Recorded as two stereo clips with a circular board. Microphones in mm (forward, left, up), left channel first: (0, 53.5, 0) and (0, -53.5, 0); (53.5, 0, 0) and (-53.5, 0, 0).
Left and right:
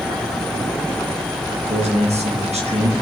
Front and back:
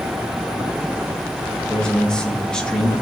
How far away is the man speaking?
About 1.8 m.